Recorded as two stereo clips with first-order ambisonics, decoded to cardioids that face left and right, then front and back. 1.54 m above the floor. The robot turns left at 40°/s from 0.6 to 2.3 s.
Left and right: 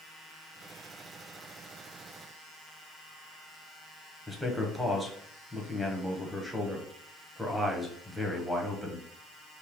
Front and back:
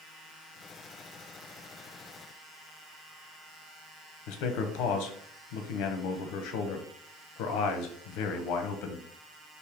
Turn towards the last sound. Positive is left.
turn(degrees=0)